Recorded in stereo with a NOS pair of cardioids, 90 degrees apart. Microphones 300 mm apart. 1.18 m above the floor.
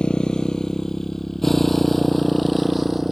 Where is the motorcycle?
5° left; by 3.1 s straight ahead.